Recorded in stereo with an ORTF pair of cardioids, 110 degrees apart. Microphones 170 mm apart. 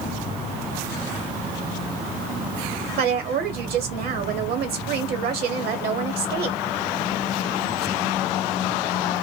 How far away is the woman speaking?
About 1.1 m.